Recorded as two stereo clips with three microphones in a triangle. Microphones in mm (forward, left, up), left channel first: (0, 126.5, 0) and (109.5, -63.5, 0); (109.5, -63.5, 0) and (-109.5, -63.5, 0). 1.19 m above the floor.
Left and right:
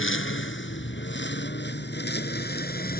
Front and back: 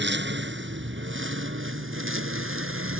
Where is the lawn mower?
145° left; by 3.0 s 165° left.